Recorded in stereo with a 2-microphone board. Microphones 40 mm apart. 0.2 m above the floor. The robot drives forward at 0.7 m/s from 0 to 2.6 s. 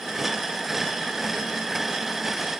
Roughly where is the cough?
No cough in this recording.